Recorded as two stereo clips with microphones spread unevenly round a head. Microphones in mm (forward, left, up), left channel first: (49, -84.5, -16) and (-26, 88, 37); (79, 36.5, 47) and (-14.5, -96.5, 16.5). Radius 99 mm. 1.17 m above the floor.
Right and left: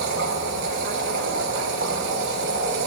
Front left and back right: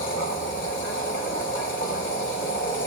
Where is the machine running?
90° left, 4 m.